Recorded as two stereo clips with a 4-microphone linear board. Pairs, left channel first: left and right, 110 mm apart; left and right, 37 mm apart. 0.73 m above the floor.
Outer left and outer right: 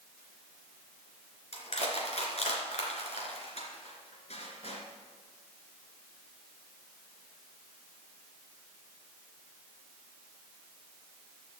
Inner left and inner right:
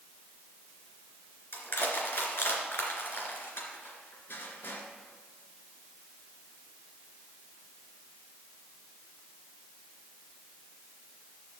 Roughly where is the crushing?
Left.